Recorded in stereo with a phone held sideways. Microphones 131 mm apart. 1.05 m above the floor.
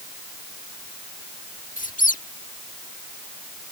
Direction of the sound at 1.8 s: 85° left.